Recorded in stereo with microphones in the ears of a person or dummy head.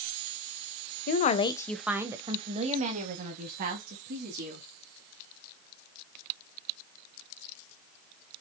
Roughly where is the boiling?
I don't hear boiling.